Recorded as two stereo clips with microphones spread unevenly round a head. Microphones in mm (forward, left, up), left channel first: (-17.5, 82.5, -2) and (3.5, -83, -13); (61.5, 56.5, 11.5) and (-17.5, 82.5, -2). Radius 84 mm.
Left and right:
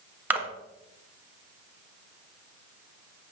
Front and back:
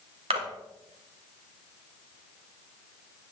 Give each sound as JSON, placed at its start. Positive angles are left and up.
{"t": 0.3, "sound": "a splash", "azimuth_deg": -165, "distance_m": 1.4}